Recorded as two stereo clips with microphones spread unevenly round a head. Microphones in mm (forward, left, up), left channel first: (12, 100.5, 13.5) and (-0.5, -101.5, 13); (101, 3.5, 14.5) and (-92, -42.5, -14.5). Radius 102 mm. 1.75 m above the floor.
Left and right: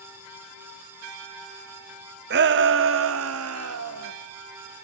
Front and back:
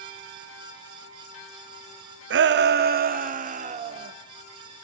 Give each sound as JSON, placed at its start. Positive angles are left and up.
{"t": 2.3, "sound": "a shout", "azimuth_deg": -135, "distance_m": 0.9}